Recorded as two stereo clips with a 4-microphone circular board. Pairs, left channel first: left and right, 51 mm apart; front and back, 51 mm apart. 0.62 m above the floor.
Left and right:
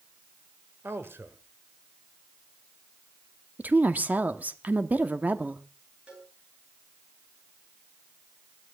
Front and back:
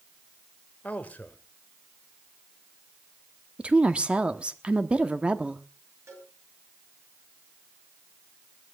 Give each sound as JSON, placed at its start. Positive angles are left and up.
{"t": 0.8, "sound": "a man speaking", "azimuth_deg": -55, "distance_m": 2.5}
{"t": 3.6, "sound": "a woman speaking", "azimuth_deg": -125, "distance_m": 1.1}
{"t": 6.1, "sound": "a cowbell", "azimuth_deg": -155, "distance_m": 9.5}